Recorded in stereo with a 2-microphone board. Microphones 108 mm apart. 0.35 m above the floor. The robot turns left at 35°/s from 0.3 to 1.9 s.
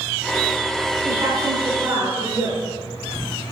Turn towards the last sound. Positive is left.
turn(degrees=-25)  # may be behind; listen again after turning